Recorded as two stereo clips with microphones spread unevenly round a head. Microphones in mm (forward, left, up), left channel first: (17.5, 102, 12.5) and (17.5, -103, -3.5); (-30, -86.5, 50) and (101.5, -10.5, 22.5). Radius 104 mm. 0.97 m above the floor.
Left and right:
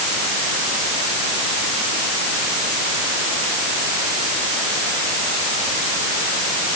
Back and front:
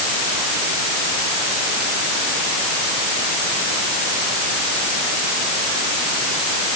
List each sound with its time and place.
Only background noise.